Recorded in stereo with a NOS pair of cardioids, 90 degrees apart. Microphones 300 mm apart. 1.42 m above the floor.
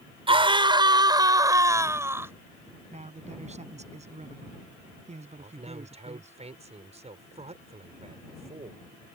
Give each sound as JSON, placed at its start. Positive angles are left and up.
{"t": 0.3, "sound": "a scream", "azimuth_deg": -15}
{"t": 2.9, "sound": "a man speaking", "azimuth_deg": -20}
{"t": 5.4, "sound": "a man speaking", "azimuth_deg": -20}